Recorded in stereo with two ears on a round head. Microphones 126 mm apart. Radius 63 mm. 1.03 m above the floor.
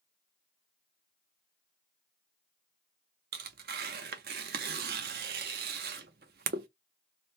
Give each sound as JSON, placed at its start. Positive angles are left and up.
{"t": 3.3, "sound": "tearing paper", "side_deg": -75, "distance_m": 0.6}